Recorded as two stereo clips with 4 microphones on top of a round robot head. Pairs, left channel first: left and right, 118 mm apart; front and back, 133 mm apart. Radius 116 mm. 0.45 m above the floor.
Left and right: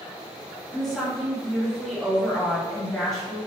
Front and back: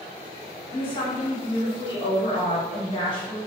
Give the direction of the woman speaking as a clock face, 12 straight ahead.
12 o'clock.